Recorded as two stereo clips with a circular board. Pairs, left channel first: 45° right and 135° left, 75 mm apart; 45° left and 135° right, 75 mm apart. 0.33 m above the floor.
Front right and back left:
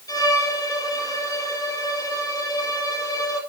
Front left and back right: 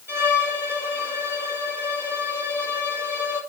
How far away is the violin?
About 2.5 m.